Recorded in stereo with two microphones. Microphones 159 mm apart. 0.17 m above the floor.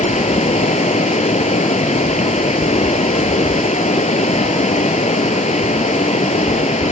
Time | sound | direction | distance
0.0 | running water | 50° left (ahead or behind) | 1.2 m